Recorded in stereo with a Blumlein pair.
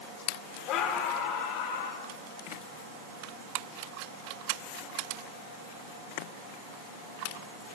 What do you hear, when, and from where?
0.7 s a scream: 35° left, 3 m; by 2.0 s 50° left, 3.5 m